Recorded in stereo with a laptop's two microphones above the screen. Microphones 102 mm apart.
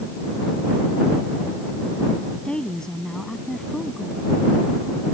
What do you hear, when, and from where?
2.5 s a woman speaking: 10° left (ahead or behind); by 4.3 s centre (ahead or behind)